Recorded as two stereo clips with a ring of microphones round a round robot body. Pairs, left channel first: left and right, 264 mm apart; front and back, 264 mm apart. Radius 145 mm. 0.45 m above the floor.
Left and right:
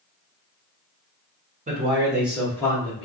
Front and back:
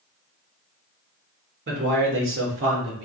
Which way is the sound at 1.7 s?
140° right.